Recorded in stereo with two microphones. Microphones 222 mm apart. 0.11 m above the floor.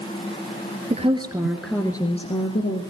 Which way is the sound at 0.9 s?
30° right (ahead or behind).